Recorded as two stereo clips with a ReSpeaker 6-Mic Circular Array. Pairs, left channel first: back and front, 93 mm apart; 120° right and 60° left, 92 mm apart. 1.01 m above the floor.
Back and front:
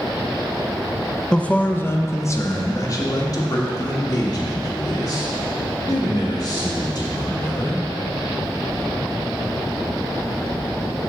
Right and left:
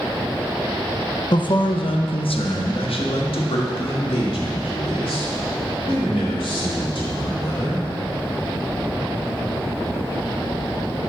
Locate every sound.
1.3 s a man speaking: 100° right, 0.6 m; by 7.8 s 140° right, 4 m